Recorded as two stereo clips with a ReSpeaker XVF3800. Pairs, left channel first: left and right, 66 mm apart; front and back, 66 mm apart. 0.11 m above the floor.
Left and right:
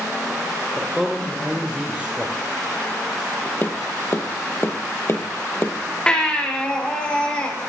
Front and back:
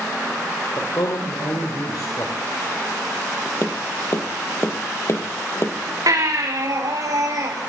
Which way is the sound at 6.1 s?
165° left.